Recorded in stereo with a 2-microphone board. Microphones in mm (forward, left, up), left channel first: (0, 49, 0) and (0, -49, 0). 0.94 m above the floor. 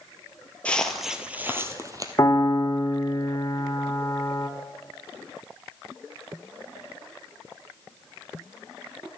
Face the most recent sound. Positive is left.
turn(degrees=35)  # may be behind; listen again after turning